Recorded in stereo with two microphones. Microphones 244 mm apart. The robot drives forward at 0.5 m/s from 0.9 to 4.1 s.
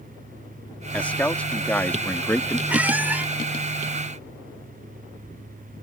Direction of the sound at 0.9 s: 5° left (ahead or behind).